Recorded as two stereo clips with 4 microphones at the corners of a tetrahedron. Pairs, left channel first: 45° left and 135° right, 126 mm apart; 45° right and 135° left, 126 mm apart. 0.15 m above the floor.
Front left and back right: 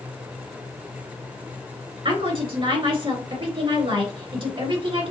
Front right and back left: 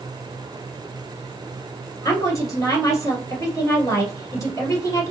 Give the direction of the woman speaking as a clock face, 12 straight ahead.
4 o'clock.